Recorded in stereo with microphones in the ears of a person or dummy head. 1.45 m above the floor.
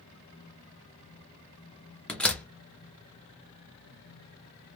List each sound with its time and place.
2.1 s a door slam: centre (ahead or behind), 0.8 m